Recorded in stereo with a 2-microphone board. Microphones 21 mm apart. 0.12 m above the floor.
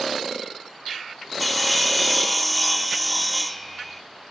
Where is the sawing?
Centre (ahead or behind), 0.6 m.